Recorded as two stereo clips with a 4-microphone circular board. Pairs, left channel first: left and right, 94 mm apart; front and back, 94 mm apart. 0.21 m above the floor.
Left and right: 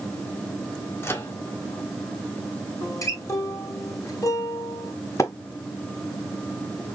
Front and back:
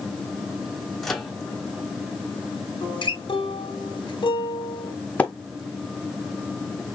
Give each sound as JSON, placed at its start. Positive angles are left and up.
{"t": 1.0, "sound": "a microwave", "azimuth_deg": 80, "distance_m": 1.2}
{"t": 2.8, "sound": "a guitar", "azimuth_deg": 35, "distance_m": 1.9}
{"t": 5.2, "sound": "a splash", "azimuth_deg": 65, "distance_m": 1.4}